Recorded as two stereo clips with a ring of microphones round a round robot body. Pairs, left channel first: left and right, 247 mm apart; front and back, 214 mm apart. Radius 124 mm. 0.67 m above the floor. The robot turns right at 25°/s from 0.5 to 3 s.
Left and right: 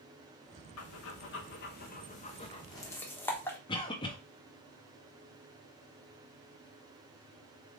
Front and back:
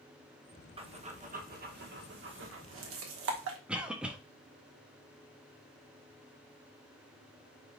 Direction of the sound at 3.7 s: 105° left.